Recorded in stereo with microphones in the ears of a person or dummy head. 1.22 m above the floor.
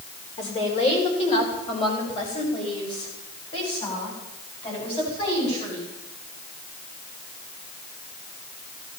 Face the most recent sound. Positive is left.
turn(degrees=30)  # may be behind; listen again after turning